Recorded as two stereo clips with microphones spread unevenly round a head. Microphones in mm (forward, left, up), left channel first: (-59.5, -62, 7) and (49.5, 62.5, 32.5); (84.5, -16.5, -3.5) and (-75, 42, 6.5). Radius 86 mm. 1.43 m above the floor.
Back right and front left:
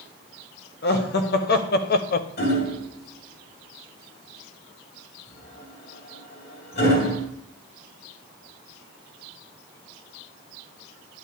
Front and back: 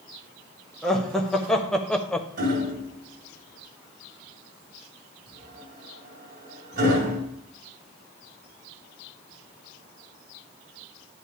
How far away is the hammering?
About 2.5 m.